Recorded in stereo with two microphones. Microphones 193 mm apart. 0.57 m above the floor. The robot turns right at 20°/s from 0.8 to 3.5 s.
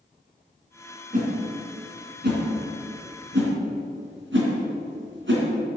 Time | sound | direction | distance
1.1 | a whoosh | 40° right (ahead or behind) | 3 m